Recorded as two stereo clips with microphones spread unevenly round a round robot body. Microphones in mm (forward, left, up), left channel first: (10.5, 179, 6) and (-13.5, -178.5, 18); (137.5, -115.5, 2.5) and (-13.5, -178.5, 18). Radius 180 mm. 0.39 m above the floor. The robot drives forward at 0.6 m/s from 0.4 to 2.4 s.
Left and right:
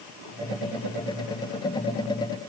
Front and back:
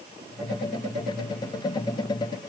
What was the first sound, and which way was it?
Only background noise.